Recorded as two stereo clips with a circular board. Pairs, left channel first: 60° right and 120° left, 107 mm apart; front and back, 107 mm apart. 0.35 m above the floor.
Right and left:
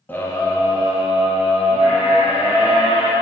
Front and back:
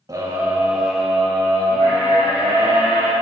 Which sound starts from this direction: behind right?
A scream, at 0.1 s.